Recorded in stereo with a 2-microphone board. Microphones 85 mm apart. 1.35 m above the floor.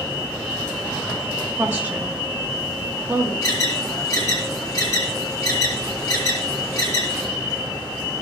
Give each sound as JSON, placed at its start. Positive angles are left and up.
{"t": 1.6, "sound": "a woman speaking", "side_deg": -20, "distance_m": 2.5}
{"t": 3.4, "sound": "an alarm", "side_deg": 35, "distance_m": 2.0}